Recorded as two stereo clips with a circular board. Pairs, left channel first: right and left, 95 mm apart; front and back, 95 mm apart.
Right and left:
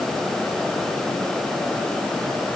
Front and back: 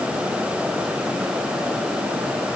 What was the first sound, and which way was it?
Only background noise.